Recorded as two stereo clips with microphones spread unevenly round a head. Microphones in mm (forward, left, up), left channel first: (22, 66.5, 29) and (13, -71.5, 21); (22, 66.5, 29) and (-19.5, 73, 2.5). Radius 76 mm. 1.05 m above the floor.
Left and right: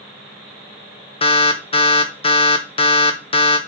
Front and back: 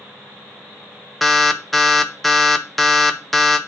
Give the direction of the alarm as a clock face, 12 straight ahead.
8 o'clock.